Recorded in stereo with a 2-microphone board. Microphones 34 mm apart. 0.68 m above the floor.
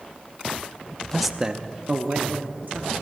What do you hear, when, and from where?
1.1 s a man speaking: 10° left (ahead or behind), 0.6 m; by 2.9 s 70° right (ahead or behind), 1.6 m